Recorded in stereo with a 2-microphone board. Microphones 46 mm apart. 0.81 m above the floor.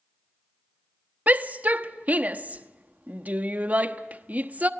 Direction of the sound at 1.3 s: 35° right (ahead or behind).